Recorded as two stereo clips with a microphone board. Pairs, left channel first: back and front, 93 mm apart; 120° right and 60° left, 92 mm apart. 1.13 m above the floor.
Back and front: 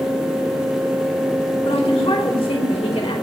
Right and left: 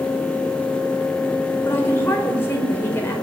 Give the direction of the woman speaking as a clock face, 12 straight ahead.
6 o'clock.